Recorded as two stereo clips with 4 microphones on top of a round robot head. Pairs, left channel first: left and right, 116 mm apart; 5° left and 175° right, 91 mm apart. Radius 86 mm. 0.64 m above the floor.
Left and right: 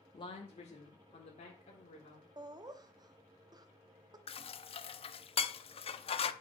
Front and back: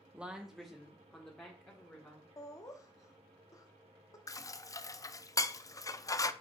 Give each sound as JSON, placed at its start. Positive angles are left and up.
{"t": 0.1, "sound": "a woman speaking", "azimuth_deg": 115, "distance_m": 0.9}
{"t": 2.4, "sound": "laughter", "azimuth_deg": -40, "distance_m": 1.0}
{"t": 4.3, "sound": "dishes clattering", "azimuth_deg": 60, "distance_m": 0.5}